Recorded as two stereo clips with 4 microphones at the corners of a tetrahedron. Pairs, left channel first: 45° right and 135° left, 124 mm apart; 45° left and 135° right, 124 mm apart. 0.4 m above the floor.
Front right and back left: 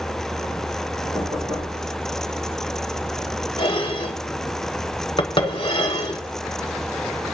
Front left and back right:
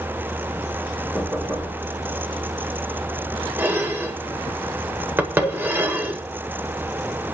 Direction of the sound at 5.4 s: 80° left.